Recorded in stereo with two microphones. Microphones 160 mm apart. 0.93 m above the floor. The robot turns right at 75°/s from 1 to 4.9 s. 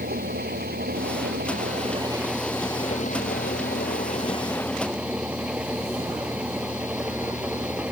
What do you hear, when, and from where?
0.0 s an engine running: 105° right; by 7.9 s 170° right